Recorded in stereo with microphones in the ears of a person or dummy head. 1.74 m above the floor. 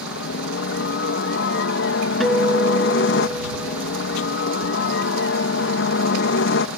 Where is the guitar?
Centre (ahead or behind).